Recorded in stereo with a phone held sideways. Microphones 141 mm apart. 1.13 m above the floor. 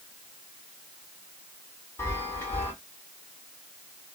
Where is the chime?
15° left (ahead or behind), 1.8 m.